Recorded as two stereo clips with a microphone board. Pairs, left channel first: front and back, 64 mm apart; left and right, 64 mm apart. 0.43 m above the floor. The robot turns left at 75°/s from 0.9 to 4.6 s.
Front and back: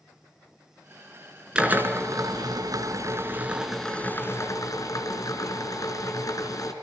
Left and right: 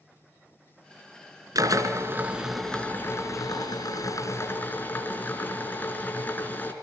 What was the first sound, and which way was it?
A drill, 105° right.